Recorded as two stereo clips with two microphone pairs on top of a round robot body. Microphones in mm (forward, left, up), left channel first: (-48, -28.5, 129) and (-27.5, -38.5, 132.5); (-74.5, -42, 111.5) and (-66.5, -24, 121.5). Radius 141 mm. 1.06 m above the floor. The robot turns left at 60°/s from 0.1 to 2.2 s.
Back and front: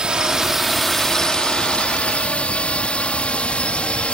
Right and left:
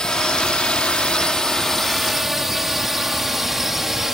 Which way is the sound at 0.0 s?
75° right.